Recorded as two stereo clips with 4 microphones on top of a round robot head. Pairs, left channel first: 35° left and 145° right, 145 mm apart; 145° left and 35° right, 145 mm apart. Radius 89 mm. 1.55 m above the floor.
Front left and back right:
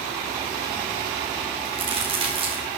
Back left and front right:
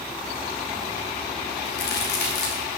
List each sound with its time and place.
1.6 s a crack: 155° left, 3 m